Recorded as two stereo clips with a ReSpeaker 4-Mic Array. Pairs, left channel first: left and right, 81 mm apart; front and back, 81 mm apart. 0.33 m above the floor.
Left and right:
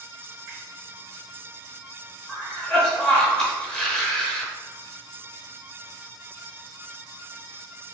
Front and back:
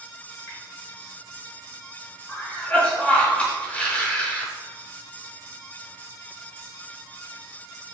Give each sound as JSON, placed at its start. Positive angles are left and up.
{"t": 0.5, "sound": "a finger snap", "azimuth_deg": -45, "distance_m": 1.8}
{"t": 2.3, "sound": "a cough", "azimuth_deg": 25, "distance_m": 0.9}